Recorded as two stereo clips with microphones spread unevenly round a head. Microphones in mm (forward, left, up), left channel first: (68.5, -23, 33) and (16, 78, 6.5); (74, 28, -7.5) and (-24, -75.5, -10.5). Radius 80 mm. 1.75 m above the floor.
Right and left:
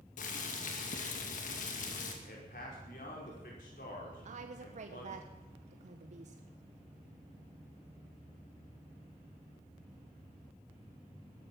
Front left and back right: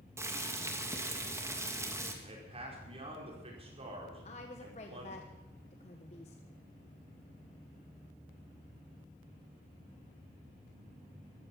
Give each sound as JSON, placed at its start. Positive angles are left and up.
{"t": 0.2, "sound": "boiling", "azimuth_deg": -60, "distance_m": 2.5}
{"t": 2.2, "sound": "a man speaking", "azimuth_deg": -85, "distance_m": 5.0}
{"t": 4.2, "sound": "a woman speaking", "azimuth_deg": 95, "distance_m": 1.3}